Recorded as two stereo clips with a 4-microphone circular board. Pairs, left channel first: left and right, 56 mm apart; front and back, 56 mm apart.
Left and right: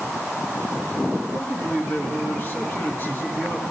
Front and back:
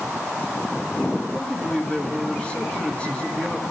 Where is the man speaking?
60° left, 1.9 m.